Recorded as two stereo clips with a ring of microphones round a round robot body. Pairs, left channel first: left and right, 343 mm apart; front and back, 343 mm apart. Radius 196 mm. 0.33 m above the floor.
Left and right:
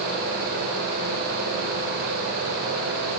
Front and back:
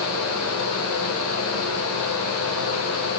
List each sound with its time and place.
Only background noise.